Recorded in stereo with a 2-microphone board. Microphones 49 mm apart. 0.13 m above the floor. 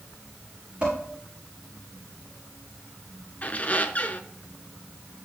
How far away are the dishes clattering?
About 5.5 m.